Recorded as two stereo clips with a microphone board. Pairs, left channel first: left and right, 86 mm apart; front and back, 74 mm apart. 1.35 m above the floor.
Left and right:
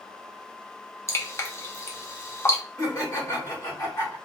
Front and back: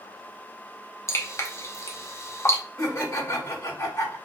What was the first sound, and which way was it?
Dripping, 40° left.